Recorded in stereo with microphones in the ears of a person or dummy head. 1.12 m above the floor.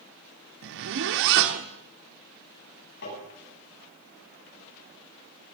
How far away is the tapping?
About 10 m.